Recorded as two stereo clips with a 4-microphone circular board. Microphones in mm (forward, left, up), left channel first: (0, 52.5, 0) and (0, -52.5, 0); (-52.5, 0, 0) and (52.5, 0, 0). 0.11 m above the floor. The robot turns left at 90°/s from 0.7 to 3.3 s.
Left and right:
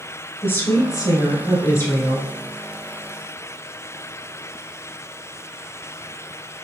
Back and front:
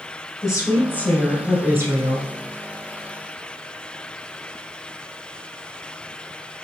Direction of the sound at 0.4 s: 145° left.